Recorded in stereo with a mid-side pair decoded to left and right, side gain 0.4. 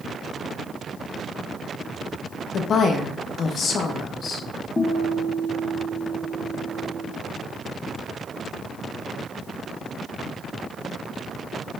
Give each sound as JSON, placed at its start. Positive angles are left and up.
{"t": 2.5, "sound": "a woman speaking", "azimuth_deg": 60, "distance_m": 0.9}
{"t": 4.8, "sound": "a guitar", "azimuth_deg": 30, "distance_m": 1.3}